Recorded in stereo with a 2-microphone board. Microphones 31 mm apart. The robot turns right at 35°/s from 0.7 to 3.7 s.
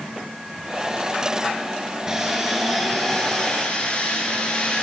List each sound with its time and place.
2.1 s sawing: 20° right, 5 m; by 4.8 s 35° left, 5 m